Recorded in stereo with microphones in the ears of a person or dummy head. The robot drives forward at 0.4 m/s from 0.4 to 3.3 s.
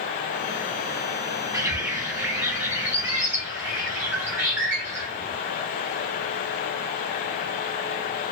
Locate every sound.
1.5 s a bird: 15° right (ahead or behind), 0.7 m; by 5.4 s 5° right (ahead or behind), 1.3 m